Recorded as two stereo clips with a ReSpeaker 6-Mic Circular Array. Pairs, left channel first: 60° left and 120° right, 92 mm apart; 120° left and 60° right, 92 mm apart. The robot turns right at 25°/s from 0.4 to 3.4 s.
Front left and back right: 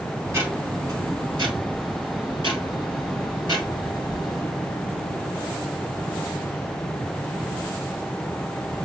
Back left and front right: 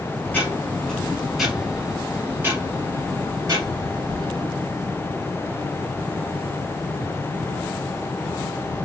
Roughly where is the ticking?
Behind.